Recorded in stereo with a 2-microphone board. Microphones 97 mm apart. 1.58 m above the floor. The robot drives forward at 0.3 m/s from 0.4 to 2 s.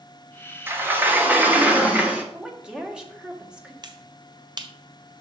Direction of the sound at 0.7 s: 20° right (ahead or behind).